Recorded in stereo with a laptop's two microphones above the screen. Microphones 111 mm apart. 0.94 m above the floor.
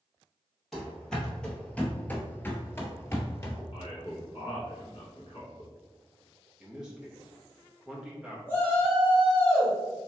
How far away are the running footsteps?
About 1.4 m.